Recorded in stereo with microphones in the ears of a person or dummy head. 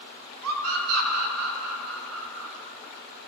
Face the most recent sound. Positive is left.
turn(degrees=-80)